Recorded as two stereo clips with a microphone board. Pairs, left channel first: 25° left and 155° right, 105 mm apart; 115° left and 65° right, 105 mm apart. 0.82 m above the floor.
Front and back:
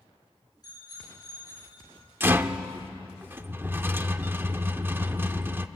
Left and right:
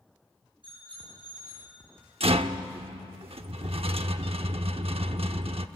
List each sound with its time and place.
0.6 s a bicycle bell: 30° right, 9 m
2.2 s a rattle: 90° right, 0.8 m